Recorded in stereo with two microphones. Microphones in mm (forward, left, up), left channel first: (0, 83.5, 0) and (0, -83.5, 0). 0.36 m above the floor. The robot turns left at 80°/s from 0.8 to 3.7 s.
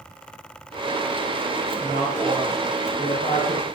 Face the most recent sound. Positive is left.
turn(degrees=95)